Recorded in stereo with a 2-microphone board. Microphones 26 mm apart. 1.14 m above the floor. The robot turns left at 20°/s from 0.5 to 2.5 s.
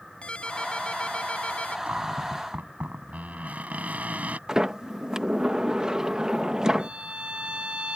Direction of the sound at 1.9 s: 90° right.